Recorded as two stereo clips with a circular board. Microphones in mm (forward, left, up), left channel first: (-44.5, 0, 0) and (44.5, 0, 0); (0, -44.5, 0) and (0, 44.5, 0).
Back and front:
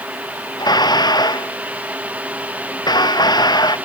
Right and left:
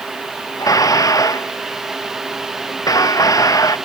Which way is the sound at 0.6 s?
140° right.